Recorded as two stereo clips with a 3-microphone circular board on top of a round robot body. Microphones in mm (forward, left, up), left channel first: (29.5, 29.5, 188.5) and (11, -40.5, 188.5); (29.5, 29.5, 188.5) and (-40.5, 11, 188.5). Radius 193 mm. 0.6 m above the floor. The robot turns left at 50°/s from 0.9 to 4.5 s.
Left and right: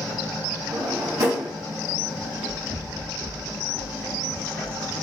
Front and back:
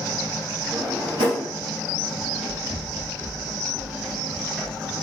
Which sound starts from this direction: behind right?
A drawer, at 0.7 s.